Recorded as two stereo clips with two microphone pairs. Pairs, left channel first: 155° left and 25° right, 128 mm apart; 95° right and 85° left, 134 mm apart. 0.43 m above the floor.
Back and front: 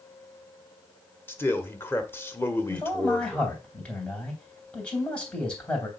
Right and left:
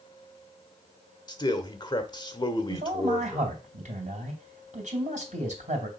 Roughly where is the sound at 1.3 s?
Behind right.